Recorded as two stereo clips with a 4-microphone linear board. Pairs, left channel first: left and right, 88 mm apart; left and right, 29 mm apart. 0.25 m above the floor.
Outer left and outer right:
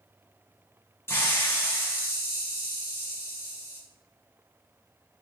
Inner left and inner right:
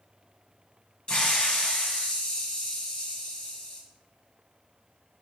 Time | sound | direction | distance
1.1 | a hiss | 30° left (ahead or behind) | 1.4 m